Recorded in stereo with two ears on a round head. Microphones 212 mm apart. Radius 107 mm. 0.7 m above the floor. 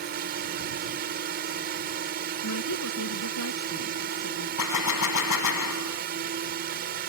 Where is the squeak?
No squeak in this recording.